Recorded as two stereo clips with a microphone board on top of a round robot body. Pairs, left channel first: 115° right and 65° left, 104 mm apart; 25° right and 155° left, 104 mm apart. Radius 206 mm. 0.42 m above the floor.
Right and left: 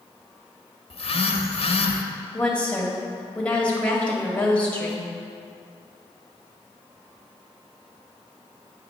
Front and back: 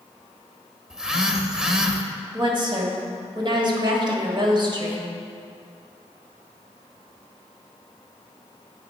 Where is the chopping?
I don't hear chopping.